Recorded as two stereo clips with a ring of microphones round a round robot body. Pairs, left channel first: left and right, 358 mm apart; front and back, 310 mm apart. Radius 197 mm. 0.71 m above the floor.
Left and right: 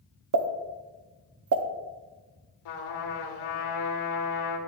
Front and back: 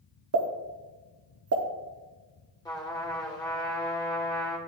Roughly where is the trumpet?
Left.